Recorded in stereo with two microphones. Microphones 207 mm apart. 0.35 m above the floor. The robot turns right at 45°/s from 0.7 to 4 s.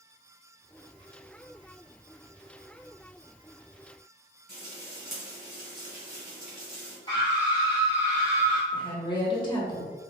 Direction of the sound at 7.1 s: 25° left (ahead or behind).